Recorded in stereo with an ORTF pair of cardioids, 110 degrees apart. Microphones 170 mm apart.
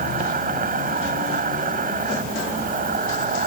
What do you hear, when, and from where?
0.0 s an insect: 65° right